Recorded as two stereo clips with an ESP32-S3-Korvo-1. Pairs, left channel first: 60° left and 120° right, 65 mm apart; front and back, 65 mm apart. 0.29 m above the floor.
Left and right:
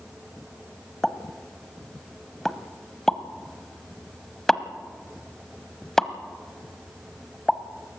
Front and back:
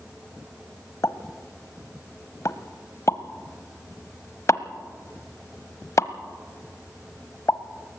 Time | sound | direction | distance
1.0 | a pop | 20° right | 0.7 m